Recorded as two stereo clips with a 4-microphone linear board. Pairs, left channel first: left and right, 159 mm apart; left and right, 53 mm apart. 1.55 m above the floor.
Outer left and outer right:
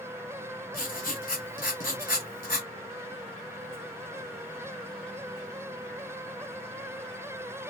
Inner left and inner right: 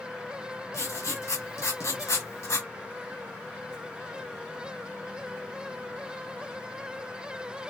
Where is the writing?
65° left (ahead or behind), 1.1 m.